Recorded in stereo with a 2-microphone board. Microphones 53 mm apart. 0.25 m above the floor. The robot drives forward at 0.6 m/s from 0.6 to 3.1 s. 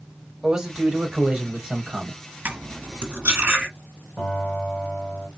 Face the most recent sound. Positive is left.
turn(degrees=0)  # may be behind; listen again after turning